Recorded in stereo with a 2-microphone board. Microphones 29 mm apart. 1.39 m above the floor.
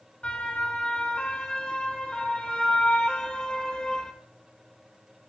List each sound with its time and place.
0.2 s a siren: 40° left (ahead or behind), 6 m; by 4.1 s 25° left (ahead or behind), 4 m